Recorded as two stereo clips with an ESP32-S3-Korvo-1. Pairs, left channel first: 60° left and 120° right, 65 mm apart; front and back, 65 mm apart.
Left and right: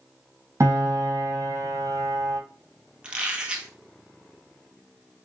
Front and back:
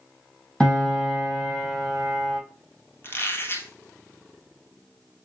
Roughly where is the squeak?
Ahead right.